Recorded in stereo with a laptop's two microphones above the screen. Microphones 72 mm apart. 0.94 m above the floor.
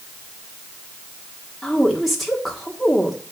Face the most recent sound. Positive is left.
turn(degrees=0)  # may be behind; listen again after turning